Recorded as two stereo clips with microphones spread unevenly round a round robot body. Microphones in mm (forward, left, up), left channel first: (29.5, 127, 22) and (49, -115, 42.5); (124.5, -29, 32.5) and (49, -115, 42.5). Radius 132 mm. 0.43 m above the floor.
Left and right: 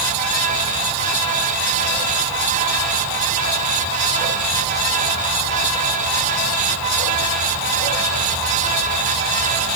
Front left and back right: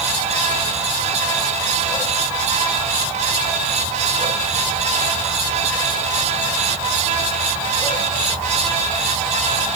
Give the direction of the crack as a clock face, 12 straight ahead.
I don't hear a crack.